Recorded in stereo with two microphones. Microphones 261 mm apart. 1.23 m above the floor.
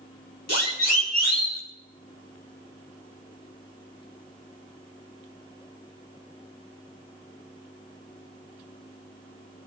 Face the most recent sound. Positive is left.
turn(degrees=75)  # may be behind; listen again after turning